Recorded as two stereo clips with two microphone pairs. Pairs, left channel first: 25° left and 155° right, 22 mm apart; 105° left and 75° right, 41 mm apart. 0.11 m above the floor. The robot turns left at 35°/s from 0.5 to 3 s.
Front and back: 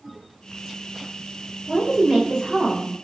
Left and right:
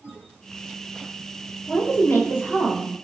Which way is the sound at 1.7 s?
155° left.